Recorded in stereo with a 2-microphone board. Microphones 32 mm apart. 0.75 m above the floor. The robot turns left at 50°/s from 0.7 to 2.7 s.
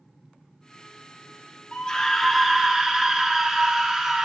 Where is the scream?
35° left, 1.2 m; by 4.3 s 15° right, 1.2 m.